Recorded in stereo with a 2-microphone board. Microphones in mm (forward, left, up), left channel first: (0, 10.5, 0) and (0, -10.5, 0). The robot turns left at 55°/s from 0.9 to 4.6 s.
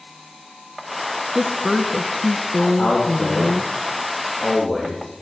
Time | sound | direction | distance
1.4 | a woman speaking | 15° right (ahead or behind) | 1.0 m
2.8 | a man speaking | 60° left (ahead or behind) | 4 m